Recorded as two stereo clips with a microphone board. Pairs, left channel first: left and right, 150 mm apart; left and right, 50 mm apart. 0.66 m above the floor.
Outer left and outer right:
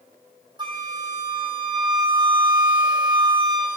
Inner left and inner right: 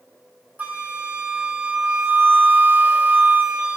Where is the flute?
30° right (ahead or behind), 0.8 m.